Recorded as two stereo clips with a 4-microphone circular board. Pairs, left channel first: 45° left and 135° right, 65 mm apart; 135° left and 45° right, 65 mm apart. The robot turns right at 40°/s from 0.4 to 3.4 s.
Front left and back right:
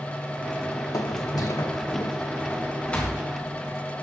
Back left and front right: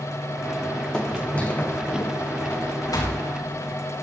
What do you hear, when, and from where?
0.9 s footsteps: 60° left, 1.3 m; by 4.0 s 130° left, 6 m